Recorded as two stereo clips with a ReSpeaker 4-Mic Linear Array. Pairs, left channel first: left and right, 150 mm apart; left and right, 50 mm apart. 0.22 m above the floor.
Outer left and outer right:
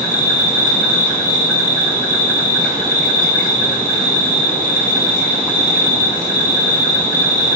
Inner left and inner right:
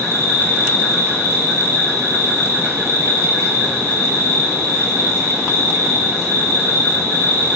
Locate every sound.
0.0 s an insect: 80° right, 1.2 m